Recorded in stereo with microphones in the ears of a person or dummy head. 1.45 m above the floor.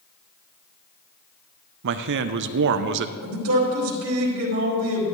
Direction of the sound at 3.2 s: 80° right.